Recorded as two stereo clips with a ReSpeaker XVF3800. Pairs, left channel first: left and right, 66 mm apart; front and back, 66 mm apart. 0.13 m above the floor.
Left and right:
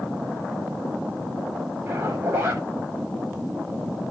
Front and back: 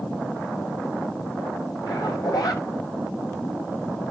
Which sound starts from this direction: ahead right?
A zipper, at 1.9 s.